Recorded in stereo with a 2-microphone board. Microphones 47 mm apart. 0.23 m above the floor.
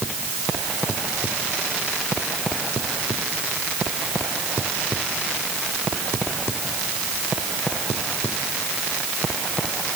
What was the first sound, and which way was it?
Only background noise.